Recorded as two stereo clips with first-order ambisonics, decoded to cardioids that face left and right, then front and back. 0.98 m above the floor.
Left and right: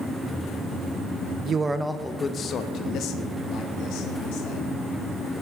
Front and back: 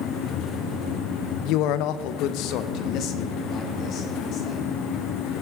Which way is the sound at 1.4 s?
30° right.